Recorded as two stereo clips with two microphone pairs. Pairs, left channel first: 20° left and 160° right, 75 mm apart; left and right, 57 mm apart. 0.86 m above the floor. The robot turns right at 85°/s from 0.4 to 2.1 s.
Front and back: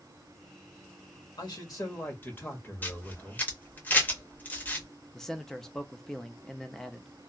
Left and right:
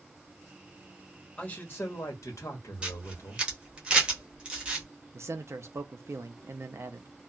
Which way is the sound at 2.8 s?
30° right.